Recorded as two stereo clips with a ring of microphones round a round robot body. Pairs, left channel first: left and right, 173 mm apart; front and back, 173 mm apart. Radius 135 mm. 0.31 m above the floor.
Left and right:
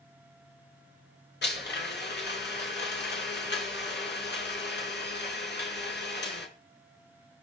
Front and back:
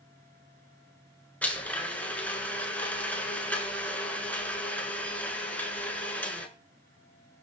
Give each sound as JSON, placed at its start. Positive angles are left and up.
{"t": 1.4, "sound": "a blender", "azimuth_deg": 80, "distance_m": 5.5}